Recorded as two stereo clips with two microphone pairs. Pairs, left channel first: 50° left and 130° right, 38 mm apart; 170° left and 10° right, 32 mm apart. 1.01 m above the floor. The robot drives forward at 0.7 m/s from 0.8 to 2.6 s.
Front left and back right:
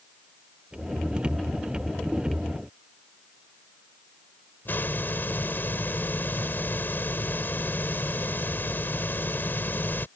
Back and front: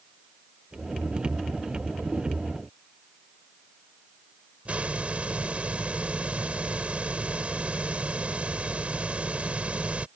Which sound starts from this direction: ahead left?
A hiss, at 4.7 s.